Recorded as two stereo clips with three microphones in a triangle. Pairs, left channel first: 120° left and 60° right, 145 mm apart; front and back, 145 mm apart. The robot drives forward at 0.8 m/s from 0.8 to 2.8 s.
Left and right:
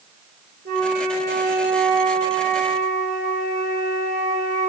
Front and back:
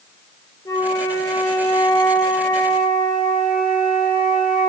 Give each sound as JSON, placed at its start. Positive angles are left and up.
{"t": 0.7, "sound": "a flute", "azimuth_deg": -70, "distance_m": 3.5}